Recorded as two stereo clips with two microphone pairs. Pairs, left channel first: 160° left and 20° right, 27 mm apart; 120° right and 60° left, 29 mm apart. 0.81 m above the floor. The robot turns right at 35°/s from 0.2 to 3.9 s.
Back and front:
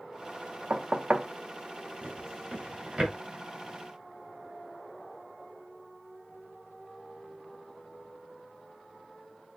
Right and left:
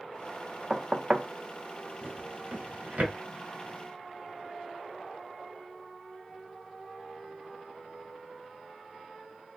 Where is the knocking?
15° right, 0.5 m; by 1.3 s 5° left, 0.5 m.